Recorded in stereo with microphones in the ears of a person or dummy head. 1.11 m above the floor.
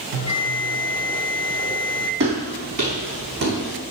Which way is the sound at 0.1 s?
65° right (ahead or behind).